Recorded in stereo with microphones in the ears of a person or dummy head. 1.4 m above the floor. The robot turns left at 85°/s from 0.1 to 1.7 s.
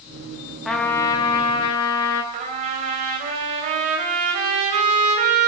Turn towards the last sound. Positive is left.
turn(degrees=-40)  # may be behind; listen again after turning